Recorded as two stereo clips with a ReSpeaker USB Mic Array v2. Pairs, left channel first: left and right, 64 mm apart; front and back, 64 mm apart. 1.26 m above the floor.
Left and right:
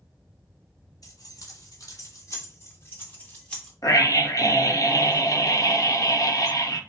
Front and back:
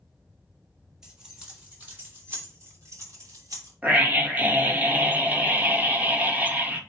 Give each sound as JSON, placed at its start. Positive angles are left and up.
{"t": 1.0, "sound": "keys jangling", "azimuth_deg": 105, "distance_m": 4.0}
{"t": 3.8, "sound": "a scream", "azimuth_deg": 115, "distance_m": 1.4}